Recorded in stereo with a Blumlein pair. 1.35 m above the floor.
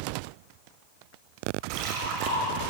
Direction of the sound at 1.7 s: 35° right.